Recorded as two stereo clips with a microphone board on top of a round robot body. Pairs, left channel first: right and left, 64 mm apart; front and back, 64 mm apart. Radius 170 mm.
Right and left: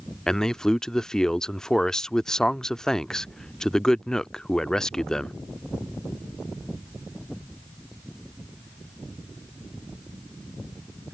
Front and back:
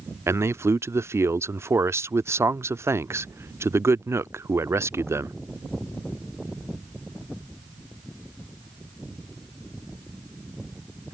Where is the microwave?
I don't hear a microwave.